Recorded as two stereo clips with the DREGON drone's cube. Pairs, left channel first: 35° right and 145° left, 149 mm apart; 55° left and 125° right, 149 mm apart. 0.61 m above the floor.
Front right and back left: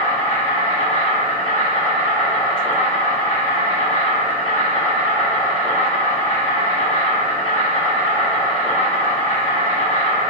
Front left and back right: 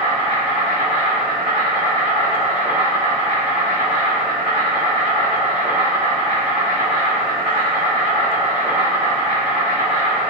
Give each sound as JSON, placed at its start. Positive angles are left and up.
{"t": 0.0, "sound": "an insect", "azimuth_deg": -80, "distance_m": 1.3}